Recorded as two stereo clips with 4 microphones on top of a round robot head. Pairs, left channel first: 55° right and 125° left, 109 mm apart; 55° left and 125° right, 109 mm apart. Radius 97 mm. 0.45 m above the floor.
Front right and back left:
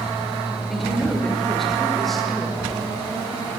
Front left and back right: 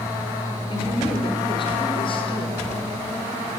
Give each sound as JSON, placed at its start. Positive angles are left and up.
{"t": 0.7, "sound": "a woman speaking", "azimuth_deg": 30, "distance_m": 1.8}